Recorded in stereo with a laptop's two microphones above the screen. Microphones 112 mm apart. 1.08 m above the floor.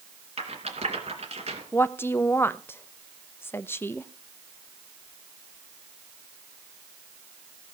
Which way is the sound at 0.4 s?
75° right (ahead or behind).